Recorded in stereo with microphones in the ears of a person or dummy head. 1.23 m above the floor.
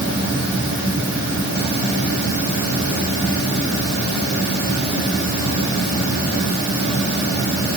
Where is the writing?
I don't hear writing.